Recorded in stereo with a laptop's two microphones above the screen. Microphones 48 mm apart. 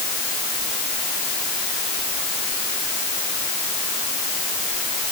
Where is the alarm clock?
No alarm clock in this recording.